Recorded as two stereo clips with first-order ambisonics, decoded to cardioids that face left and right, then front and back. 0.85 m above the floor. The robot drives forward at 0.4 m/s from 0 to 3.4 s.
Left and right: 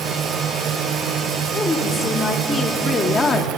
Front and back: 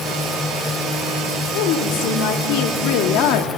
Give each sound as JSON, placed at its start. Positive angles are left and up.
{"t": 1.5, "sound": "a woman speaking", "azimuth_deg": 10, "distance_m": 1.8}